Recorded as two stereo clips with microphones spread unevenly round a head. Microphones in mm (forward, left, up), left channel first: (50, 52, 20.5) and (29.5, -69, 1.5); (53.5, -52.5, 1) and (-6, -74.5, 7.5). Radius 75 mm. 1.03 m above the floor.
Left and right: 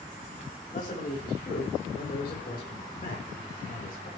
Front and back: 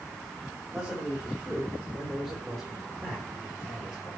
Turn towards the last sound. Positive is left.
turn(degrees=105)